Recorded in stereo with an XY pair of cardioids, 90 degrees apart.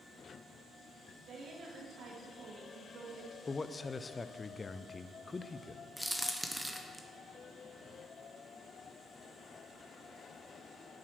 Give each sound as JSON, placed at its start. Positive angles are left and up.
{"t": 1.3, "sound": "a woman speaking", "azimuth_deg": -65, "distance_m": 3.0}
{"t": 3.5, "sound": "a man speaking", "azimuth_deg": 30, "distance_m": 0.6}
{"t": 6.0, "sound": "a crack", "azimuth_deg": -5, "distance_m": 1.3}